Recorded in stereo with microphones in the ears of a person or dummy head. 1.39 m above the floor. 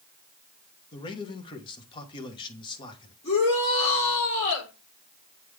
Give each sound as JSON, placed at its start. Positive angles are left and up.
{"t": 0.9, "sound": "a man speaking", "side_deg": 30, "distance_m": 1.2}
{"t": 3.2, "sound": "a shout", "side_deg": 40, "distance_m": 4.5}